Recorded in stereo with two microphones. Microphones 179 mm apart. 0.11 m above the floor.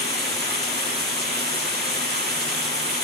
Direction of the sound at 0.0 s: 65° right (ahead or behind).